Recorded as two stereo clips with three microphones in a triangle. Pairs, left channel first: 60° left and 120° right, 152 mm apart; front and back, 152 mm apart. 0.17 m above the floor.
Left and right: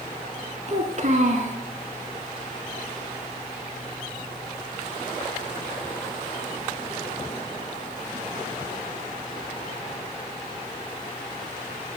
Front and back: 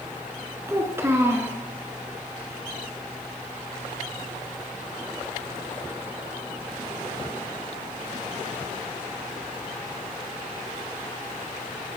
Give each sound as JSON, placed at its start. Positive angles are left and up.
{"t": 0.7, "sound": "a child speaking", "azimuth_deg": -110, "distance_m": 1.0}